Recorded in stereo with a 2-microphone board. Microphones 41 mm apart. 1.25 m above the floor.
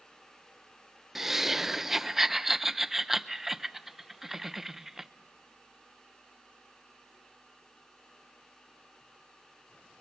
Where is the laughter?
10° right (ahead or behind), 0.6 m.